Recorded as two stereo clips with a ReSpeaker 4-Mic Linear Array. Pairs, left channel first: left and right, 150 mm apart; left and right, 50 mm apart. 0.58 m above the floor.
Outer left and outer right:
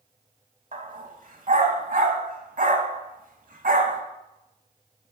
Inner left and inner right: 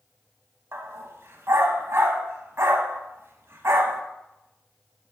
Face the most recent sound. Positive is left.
turn(degrees=-60)  # may be behind; listen again after turning